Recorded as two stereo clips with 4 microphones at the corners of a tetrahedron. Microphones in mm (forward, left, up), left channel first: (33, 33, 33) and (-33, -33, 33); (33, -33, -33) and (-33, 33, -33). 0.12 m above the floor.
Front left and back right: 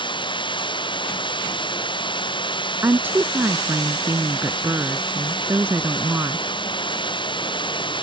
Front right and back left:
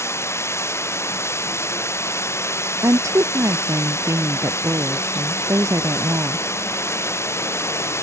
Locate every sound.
0.0 s running water: 15° left
2.8 s a woman speaking: 170° left